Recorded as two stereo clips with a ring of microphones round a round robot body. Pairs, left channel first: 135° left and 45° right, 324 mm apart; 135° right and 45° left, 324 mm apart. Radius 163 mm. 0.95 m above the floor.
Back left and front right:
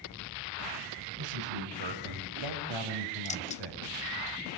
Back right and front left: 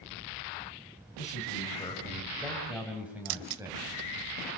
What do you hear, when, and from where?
1.2 s a man speaking: 65° right, 6.5 m; by 3.8 s 35° right, 7.5 m
3.2 s keys jangling: 65° left, 0.7 m